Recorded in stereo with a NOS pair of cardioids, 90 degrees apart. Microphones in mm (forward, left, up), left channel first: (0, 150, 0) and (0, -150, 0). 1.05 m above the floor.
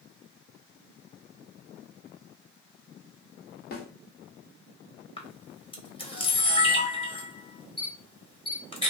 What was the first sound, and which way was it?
A snare drum, 35° left.